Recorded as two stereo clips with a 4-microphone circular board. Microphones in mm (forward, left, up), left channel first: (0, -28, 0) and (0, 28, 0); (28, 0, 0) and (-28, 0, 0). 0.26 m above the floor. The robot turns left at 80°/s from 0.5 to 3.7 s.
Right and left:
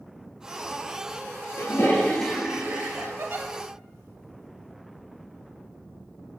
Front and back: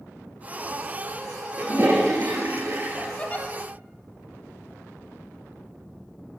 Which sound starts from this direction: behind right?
A toilet flushing, at 1.6 s.